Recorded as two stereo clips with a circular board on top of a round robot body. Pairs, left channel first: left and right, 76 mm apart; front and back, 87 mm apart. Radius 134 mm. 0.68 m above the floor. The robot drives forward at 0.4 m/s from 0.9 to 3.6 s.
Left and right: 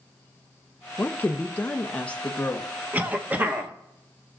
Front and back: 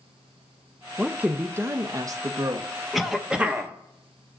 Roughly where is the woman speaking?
Behind left.